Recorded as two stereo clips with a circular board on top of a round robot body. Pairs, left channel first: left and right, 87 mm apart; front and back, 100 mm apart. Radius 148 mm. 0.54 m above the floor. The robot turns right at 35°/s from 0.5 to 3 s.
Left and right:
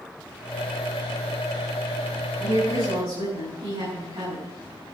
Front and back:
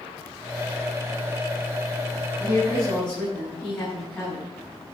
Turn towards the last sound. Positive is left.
turn(degrees=-75)